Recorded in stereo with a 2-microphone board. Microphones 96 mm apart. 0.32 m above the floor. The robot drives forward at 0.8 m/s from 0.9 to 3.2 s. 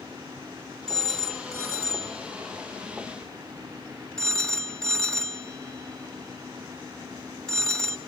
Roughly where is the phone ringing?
Centre.